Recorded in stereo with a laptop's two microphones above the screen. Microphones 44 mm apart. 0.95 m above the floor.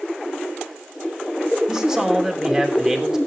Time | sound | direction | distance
1.7 | a man speaking | 15° right (ahead or behind) | 3 m